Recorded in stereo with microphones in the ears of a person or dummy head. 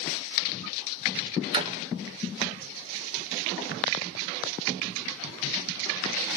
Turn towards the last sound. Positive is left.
turn(degrees=-35)  # may be behind; listen again after turning